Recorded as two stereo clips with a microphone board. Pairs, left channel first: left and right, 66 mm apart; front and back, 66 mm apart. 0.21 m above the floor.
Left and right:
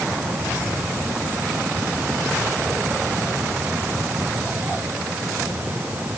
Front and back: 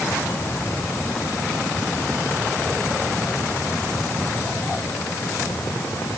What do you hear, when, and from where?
Only background noise.